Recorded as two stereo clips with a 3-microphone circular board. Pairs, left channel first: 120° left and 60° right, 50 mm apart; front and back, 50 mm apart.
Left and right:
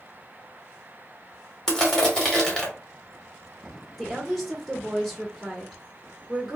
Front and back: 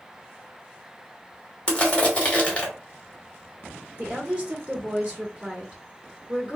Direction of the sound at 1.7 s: 50° left.